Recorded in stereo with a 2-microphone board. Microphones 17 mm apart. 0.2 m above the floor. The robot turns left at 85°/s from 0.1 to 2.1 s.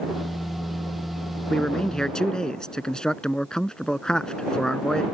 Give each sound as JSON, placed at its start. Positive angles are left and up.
{"t": 1.5, "sound": "a man speaking", "azimuth_deg": 110}